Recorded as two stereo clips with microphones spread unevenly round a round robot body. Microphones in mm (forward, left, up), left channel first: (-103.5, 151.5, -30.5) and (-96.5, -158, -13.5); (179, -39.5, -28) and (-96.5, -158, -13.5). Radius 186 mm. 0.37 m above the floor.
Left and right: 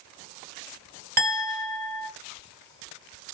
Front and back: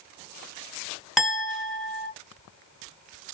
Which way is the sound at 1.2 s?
60° right.